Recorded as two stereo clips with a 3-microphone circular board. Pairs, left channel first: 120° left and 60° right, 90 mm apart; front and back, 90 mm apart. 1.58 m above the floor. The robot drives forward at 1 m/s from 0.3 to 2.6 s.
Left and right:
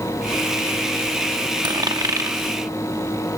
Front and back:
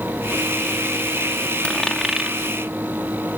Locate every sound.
1.6 s a dropped coin: 70° right; by 2.4 s 105° right